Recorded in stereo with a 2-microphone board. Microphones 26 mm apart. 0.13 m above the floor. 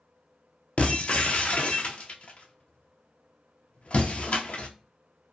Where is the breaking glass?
55° left (ahead or behind), 0.5 m.